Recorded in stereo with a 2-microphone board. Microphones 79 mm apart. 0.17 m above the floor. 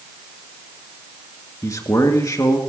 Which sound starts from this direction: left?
A man speaking, at 1.6 s.